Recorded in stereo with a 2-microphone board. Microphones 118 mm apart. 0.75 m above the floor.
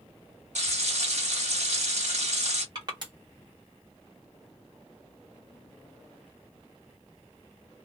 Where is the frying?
75° right (ahead or behind), 1.4 m.